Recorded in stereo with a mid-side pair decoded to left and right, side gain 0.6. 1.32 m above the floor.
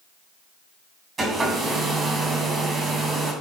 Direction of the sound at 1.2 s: 25° right.